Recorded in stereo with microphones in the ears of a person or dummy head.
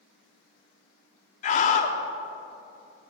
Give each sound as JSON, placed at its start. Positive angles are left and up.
{"t": 1.4, "sound": "a scream", "side_deg": 40, "distance_m": 0.7}